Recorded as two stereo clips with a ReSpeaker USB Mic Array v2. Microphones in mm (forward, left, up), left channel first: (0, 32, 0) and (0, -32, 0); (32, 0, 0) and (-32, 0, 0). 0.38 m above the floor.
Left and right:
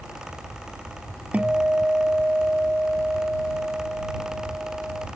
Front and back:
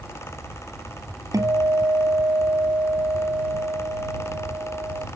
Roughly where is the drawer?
I don't hear a drawer.